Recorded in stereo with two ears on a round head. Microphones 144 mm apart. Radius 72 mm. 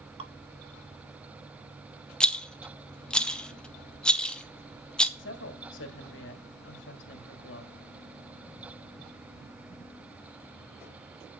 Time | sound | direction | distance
0.2 | dripping | 35° right (ahead or behind) | 1.4 m
2.2 | a rattle | 5° left (ahead or behind) | 1.0 m
5.2 | a woman speaking | 85° left | 2.0 m